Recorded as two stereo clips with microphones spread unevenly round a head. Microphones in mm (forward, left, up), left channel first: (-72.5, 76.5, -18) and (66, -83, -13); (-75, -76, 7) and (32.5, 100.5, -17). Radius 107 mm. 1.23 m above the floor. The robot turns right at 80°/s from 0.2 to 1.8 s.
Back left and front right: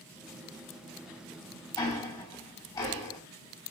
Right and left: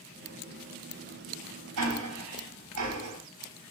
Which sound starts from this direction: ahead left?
Ticking, at 1.8 s.